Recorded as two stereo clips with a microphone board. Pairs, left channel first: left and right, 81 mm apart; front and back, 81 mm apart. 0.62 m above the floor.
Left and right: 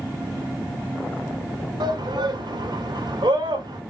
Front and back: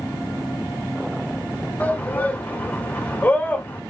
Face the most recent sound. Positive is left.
turn(degrees=-70)